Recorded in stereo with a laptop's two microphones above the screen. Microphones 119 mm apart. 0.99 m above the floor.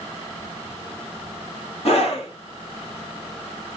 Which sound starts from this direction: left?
A scream, at 1.9 s.